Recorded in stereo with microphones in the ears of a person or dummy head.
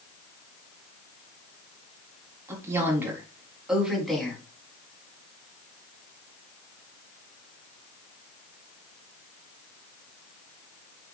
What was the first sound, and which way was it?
A woman speaking, 15° right (ahead or behind).